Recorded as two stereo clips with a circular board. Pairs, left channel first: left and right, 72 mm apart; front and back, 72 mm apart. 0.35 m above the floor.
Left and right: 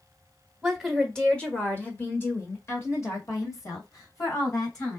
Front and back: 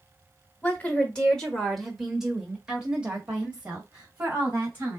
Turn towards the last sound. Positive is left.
turn(degrees=120)